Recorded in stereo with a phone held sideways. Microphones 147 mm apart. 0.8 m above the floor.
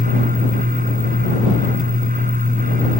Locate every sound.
0.0 s a fan: 65° right (ahead or behind)